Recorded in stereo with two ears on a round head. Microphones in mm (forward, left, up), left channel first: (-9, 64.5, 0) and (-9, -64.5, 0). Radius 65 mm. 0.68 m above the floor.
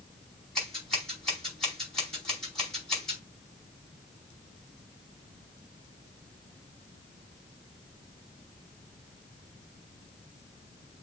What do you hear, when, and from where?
0.6 s scissors: 5° left (ahead or behind), 5 m